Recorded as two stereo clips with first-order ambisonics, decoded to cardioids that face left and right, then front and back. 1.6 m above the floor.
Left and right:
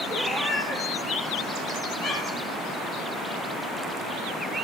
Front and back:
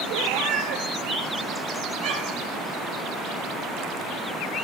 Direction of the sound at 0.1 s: 165° left.